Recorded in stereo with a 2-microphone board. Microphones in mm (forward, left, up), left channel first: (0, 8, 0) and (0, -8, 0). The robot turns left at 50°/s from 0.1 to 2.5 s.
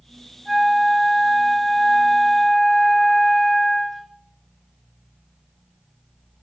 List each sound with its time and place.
0.5 s a flute: 115° right, 1.4 m; by 4.1 s 145° left, 1.4 m